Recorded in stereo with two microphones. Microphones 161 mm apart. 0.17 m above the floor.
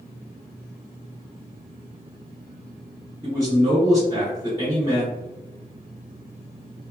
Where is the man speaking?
20° left (ahead or behind), 1.8 m.